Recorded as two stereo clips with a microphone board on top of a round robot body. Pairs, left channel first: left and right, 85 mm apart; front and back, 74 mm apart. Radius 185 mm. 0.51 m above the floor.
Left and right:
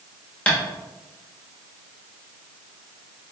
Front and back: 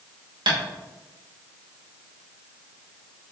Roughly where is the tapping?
Behind.